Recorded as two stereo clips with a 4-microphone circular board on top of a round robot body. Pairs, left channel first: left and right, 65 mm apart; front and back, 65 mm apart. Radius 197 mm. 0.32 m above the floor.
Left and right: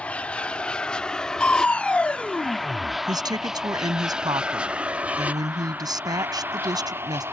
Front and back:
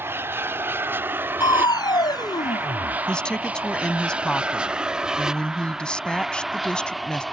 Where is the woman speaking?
80° right.